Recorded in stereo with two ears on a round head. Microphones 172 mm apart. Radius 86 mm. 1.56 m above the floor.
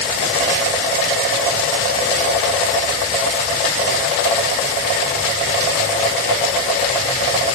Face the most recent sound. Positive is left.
No sound to turn to.